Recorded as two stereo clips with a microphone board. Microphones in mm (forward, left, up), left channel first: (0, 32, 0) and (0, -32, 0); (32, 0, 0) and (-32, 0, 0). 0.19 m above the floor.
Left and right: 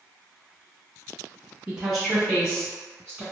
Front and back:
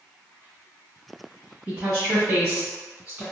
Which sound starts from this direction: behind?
A woman speaking, at 1.7 s.